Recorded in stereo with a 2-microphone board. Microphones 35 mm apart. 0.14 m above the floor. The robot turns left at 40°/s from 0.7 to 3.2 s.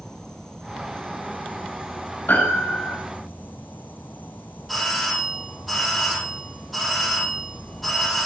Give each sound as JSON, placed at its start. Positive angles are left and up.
{"t": 0.0, "sound": "an insect", "azimuth_deg": 165, "distance_m": 0.9}
{"t": 2.3, "sound": "a piano", "side_deg": 55, "distance_m": 5.0}
{"t": 4.7, "sound": "a doorbell", "side_deg": 0, "distance_m": 6.5}